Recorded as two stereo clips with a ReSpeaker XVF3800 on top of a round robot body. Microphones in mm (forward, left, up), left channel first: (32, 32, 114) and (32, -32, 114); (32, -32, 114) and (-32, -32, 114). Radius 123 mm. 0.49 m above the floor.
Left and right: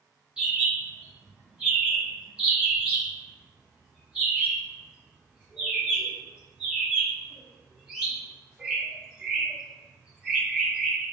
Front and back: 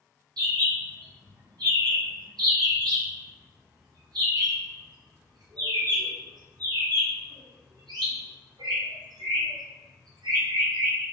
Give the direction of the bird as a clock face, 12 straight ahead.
6 o'clock.